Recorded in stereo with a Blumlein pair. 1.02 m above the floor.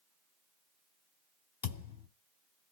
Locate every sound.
1.6 s a thud: 60° left, 1.6 m